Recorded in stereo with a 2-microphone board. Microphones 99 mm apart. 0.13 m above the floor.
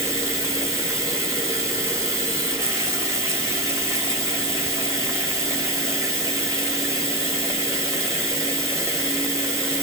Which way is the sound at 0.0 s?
30° right (ahead or behind).